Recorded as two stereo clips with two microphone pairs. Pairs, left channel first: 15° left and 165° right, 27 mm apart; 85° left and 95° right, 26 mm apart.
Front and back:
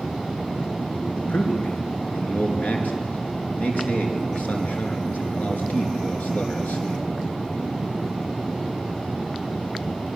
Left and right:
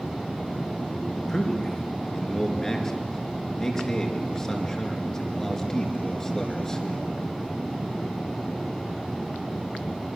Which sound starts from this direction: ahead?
A man speaking, at 1.1 s.